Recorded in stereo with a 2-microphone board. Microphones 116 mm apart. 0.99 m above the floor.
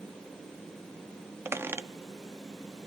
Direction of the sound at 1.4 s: 20° right (ahead or behind).